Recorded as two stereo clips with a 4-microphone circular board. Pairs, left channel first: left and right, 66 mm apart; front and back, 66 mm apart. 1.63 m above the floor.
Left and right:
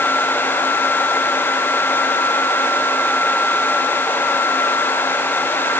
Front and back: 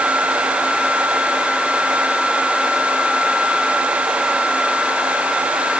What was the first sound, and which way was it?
Only background noise.